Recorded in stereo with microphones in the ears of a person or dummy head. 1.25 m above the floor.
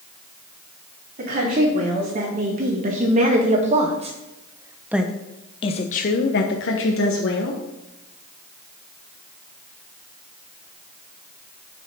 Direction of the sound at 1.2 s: 50° right (ahead or behind).